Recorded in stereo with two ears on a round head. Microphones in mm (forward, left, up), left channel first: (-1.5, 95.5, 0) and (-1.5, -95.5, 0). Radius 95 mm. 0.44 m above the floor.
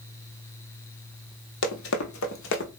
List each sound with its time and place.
1.6 s running footsteps: 65° left (ahead or behind), 1.1 m; by 2.7 s 55° left (ahead or behind), 1.0 m